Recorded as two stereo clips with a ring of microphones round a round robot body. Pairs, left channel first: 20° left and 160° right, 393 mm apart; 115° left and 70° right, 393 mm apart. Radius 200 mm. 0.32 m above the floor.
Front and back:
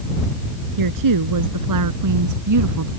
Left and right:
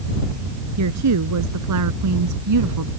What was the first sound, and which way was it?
A woman speaking, 120° right.